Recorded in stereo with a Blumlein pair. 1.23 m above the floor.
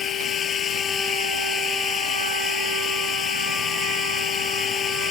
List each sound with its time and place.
0.0 s running water: 20° left